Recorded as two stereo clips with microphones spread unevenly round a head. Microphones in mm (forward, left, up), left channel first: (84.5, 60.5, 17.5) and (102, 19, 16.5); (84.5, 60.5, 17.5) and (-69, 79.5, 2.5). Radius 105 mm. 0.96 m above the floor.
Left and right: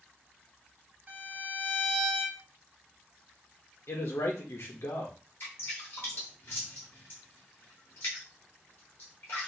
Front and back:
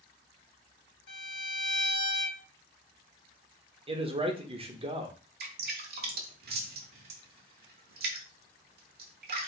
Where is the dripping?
165° left, 0.9 m.